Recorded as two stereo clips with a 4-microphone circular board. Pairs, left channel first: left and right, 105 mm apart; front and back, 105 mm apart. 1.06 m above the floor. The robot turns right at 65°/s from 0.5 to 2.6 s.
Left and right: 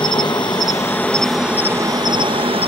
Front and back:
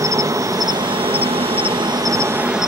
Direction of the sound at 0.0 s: 125° left.